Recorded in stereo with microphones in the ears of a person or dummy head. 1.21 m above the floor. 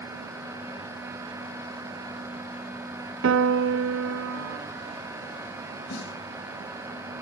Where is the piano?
75° right (ahead or behind), 0.6 m.